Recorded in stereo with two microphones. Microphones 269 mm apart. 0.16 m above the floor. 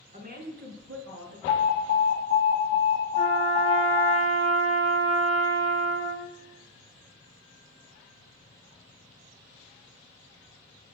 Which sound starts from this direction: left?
An alarm, at 1.5 s.